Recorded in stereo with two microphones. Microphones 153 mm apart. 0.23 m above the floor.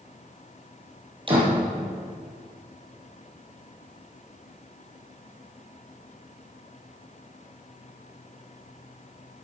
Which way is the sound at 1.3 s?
35° right (ahead or behind).